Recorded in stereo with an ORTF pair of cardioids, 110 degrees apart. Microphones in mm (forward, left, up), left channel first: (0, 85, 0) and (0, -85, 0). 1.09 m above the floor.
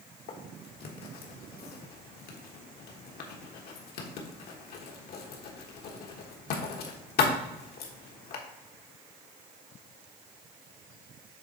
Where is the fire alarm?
No fire alarm in this recording.